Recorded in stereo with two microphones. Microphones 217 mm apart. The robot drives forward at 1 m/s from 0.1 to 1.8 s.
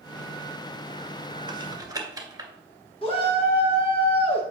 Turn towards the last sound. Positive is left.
turn(degrees=25)  # may be behind; listen again after turning